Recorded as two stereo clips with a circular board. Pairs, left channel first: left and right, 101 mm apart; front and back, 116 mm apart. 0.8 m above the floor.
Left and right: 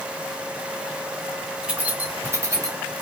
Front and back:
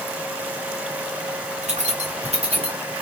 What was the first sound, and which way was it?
Keys jangling, 170° right.